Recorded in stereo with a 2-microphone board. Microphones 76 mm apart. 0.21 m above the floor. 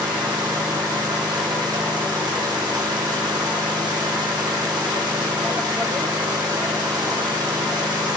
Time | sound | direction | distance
0.0 | an engine running | 75° right (ahead or behind) | 5.5 m